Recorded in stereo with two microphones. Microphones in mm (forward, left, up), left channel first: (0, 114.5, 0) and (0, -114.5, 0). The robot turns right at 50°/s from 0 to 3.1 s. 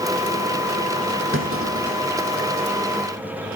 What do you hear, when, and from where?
1.3 s a clunk: 60° right (ahead or behind), 3.5 m; by 2.4 s 55° right (ahead or behind), 3.5 m